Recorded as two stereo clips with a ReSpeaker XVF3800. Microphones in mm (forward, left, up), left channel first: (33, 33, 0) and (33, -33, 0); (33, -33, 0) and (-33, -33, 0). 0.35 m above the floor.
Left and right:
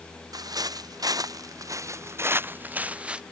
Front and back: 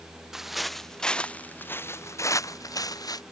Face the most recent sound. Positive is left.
turn(degrees=-15)